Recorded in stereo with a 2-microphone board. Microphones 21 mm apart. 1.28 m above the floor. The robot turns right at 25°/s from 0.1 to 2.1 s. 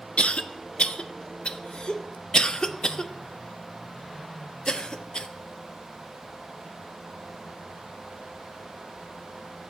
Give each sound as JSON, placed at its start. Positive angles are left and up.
{"t": 0.2, "sound": "a cough", "side_deg": 70, "distance_m": 0.5}